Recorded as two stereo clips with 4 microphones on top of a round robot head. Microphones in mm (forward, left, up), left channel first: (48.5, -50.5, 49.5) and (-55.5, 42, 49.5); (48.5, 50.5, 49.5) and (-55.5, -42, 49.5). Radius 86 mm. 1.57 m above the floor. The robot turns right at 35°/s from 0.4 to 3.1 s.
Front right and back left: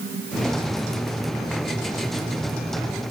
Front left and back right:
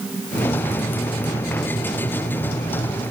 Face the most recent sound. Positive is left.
No sound to turn to.